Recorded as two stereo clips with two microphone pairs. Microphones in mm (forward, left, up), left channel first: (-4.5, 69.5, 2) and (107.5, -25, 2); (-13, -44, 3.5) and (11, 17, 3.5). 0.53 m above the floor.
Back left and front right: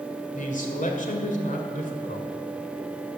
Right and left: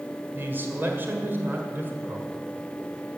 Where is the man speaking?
125° left, 1.9 m.